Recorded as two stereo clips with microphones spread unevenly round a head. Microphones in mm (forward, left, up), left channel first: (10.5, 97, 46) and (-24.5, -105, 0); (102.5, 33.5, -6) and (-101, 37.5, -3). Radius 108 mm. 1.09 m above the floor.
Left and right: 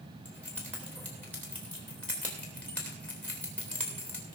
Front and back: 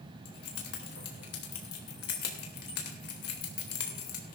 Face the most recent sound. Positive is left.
turn(degrees=0)